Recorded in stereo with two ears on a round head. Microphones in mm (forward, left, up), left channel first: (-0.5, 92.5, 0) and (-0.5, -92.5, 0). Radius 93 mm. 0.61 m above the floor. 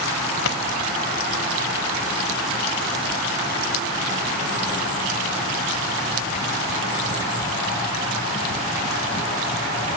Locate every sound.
0.5 s a pop: 75° left (ahead or behind), 1.6 m